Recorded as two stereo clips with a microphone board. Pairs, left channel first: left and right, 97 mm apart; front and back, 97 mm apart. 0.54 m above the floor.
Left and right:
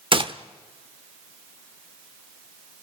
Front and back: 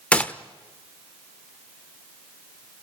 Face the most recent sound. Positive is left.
turn(degrees=-75)